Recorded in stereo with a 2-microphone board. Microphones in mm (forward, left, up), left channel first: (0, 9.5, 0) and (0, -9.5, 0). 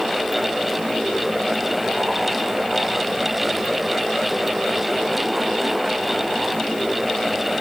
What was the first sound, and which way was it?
Only background noise.